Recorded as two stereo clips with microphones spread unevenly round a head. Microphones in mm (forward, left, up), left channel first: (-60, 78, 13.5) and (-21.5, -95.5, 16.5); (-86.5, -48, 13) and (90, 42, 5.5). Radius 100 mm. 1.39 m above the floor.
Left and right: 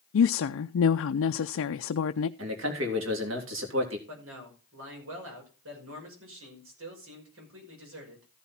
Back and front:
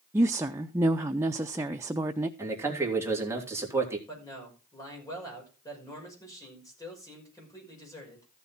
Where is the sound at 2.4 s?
50° right, 3 m.